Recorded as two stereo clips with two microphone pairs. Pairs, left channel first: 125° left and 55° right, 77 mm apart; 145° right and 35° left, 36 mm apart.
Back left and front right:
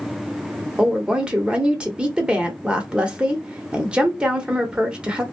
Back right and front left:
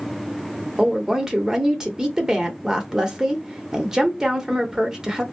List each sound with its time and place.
0.8 s a woman speaking: 5° right, 0.8 m